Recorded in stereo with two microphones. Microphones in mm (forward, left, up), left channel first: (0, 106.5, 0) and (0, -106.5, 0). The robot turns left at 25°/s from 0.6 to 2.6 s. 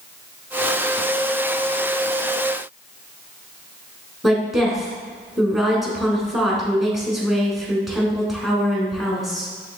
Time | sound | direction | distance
4.2 | a woman speaking | centre (ahead or behind) | 1.1 m